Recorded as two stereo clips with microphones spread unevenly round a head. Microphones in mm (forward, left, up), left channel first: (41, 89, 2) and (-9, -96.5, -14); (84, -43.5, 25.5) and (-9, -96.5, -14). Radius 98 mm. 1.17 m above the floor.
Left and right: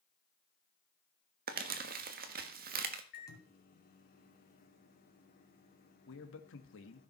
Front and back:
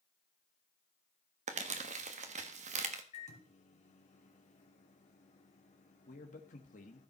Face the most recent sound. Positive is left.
turn(degrees=50)